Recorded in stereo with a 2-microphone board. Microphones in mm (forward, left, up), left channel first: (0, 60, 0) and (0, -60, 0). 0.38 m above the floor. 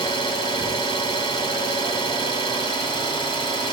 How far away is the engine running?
About 1.6 m.